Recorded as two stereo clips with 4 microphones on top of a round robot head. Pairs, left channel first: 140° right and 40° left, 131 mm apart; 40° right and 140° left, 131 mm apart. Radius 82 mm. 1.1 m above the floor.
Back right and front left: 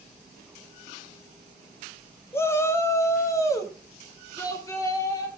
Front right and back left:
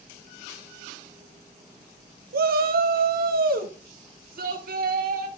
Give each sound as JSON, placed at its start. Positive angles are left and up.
{"t": 2.3, "sound": "a shout", "azimuth_deg": 145, "distance_m": 0.7}